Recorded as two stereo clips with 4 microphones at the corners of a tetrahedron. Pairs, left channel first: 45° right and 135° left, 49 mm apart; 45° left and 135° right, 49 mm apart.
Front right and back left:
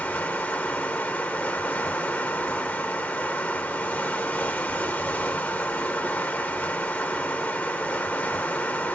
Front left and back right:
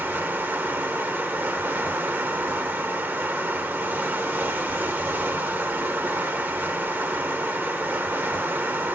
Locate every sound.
0.0 s running water: 95° right, 0.9 m